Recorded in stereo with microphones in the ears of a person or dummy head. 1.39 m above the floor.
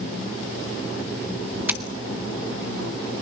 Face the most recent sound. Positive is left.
turn(degrees=-20)  # may be behind; listen again after turning